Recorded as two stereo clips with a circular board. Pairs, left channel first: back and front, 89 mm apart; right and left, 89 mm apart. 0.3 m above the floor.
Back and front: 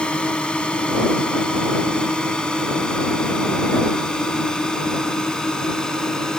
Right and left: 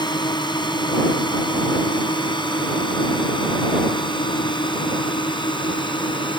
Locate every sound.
0.0 s a drone: 105° right; by 6.4 s 100° right